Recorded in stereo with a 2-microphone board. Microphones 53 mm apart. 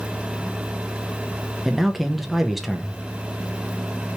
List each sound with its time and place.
1.6 s a man speaking: centre (ahead or behind), 0.5 m